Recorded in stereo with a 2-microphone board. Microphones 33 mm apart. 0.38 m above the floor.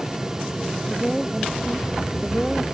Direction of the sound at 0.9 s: 15° right (ahead or behind).